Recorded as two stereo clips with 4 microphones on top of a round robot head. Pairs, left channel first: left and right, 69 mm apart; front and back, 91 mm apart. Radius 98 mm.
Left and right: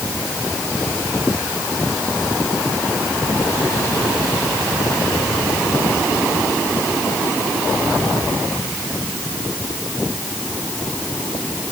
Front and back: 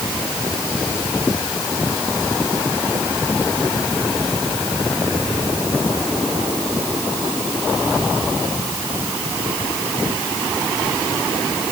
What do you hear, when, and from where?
Only background noise.